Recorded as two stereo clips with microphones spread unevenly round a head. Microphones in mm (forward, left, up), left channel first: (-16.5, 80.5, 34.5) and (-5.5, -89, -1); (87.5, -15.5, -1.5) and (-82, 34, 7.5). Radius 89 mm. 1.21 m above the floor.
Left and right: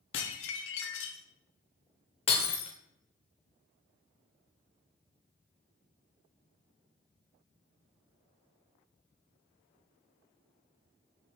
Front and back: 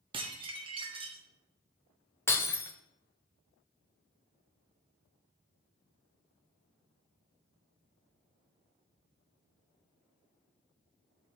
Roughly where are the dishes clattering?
Left.